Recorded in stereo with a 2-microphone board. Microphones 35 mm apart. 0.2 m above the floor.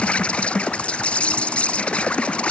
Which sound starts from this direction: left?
An insect, at 0.0 s.